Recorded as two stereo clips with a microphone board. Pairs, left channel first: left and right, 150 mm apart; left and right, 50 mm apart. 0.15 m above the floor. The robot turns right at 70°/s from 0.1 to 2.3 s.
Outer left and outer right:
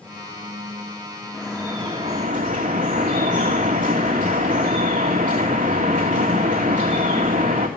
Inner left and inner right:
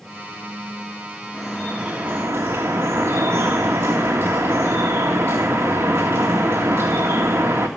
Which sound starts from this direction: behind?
Dripping, at 1.3 s.